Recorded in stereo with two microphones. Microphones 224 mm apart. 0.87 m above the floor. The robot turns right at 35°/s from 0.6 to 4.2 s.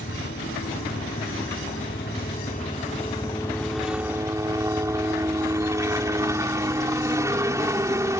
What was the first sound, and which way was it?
A helicopter, 70° left.